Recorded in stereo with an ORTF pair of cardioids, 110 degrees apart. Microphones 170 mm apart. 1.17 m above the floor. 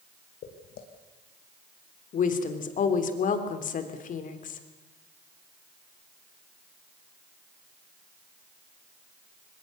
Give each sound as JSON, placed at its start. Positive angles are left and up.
{"t": 0.4, "sound": "footsteps", "azimuth_deg": 70, "distance_m": 4.0}
{"t": 2.1, "sound": "a woman speaking", "azimuth_deg": 50, "distance_m": 3.0}